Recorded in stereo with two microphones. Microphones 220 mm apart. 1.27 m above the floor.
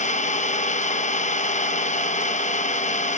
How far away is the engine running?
About 0.8 m.